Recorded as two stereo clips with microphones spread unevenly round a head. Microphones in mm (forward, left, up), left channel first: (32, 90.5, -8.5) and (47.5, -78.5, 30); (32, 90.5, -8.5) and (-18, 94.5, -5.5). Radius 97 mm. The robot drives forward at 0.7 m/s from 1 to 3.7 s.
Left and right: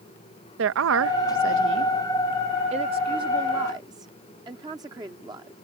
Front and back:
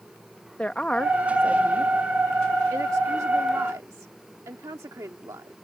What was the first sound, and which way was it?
A woman speaking, 85° right.